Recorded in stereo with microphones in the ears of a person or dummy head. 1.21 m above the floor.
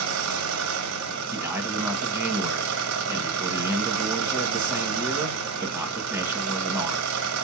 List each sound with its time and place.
0.0 s an engine running: 75° right (ahead or behind), 0.8 m
1.3 s a man speaking: 5° right (ahead or behind), 1.0 m